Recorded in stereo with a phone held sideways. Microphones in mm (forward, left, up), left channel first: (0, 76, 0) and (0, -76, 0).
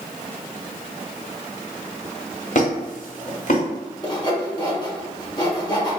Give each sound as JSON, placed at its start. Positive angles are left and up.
{"t": 2.5, "sound": "a squeak", "side_deg": 55, "distance_m": 1.2}
{"t": 4.0, "sound": "sawing", "side_deg": 25, "distance_m": 0.9}